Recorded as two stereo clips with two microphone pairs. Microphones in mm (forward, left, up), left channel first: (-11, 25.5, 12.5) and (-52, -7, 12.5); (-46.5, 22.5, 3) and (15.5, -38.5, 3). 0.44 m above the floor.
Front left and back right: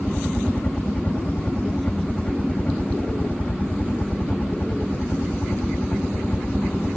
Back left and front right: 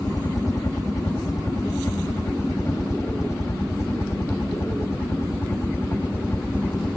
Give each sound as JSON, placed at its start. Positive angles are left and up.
{"t": 0.0, "sound": "a helicopter", "azimuth_deg": 100}